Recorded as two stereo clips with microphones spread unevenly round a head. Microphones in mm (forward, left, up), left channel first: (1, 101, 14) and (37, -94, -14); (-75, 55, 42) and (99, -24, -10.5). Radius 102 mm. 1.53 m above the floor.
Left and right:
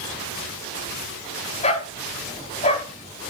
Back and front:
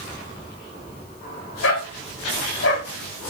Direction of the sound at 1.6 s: 155° left.